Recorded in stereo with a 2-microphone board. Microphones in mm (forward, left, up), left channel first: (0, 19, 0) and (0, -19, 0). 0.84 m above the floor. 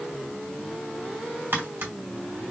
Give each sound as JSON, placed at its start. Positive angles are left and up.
{"t": 1.5, "sound": "tapping", "side_deg": -65, "distance_m": 2.0}